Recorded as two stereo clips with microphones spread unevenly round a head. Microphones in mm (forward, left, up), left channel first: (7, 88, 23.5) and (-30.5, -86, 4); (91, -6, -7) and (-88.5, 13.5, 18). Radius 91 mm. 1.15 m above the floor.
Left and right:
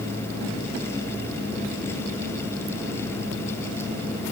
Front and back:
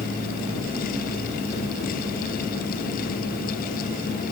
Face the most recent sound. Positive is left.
No sound to turn to.